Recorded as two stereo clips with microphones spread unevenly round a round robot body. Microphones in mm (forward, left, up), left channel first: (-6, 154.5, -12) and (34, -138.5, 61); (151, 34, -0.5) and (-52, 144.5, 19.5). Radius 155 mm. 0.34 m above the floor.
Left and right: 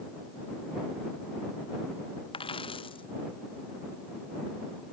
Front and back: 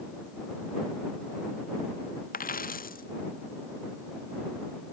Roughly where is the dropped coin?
Ahead left.